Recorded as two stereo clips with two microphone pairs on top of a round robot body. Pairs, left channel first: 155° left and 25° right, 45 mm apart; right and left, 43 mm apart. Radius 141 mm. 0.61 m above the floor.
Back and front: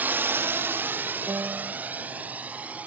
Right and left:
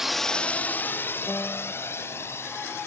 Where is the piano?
35° right.